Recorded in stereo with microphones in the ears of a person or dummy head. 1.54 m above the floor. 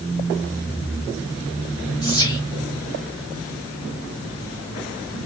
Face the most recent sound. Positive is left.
turn(degrees=20)  # may be behind; listen again after turning